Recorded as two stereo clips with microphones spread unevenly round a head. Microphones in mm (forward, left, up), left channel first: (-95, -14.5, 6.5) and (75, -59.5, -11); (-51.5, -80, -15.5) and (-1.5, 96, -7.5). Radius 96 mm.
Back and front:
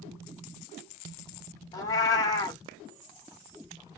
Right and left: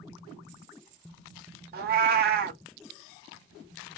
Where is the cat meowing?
100° left, 0.6 m.